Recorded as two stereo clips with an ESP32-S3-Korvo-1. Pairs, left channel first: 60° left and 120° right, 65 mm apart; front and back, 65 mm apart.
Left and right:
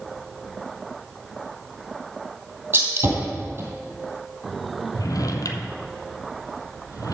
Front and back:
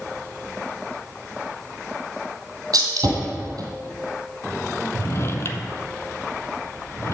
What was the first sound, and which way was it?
A gunshot, 170° right.